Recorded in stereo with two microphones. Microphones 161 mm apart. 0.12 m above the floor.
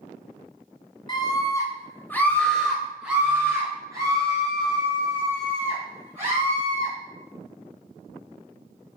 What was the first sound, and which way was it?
A scream, 30° left (ahead or behind).